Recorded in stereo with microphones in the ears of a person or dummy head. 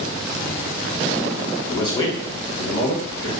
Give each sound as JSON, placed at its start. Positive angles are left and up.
{"t": 1.6, "sound": "a man speaking", "side_deg": 15, "distance_m": 0.7}